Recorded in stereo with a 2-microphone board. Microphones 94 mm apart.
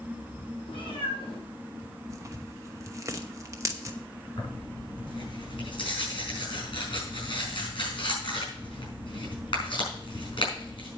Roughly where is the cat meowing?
Left.